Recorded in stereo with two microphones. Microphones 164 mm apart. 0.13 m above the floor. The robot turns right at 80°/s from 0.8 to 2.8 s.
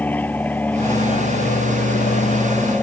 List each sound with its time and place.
0.0 s an aircraft: 10° left; by 2.8 s 170° left